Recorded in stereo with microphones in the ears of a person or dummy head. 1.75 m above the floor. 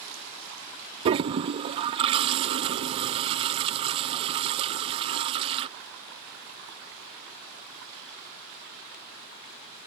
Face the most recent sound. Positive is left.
turn(degrees=-30)  # may be behind; listen again after turning